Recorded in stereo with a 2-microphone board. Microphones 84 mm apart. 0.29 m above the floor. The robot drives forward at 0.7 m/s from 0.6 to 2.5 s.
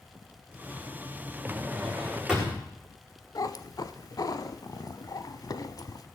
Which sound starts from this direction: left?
A cat meowing, at 3.4 s.